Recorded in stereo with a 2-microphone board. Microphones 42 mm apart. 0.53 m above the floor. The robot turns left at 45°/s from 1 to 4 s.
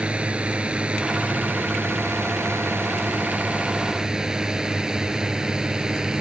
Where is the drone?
25° right (ahead or behind); by 6.2 s 20° right (ahead or behind).